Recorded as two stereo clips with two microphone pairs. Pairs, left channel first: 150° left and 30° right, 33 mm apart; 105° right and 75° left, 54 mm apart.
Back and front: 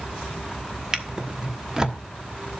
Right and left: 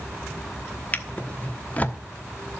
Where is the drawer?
70° right, 1.1 m.